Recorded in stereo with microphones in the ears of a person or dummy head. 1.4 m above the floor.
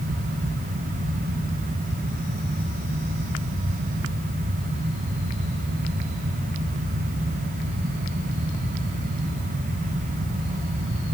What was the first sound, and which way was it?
Only background noise.